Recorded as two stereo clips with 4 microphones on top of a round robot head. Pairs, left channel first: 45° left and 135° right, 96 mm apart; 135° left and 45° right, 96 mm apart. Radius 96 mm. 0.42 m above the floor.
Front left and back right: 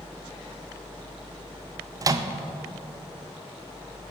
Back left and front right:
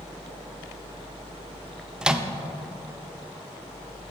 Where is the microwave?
120° right, 0.6 m.